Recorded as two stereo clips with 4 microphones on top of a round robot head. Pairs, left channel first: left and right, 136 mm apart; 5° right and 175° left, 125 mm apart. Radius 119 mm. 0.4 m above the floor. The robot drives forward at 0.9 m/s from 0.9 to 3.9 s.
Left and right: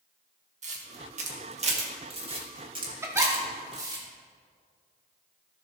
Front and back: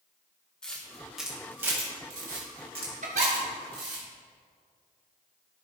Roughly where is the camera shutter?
Right.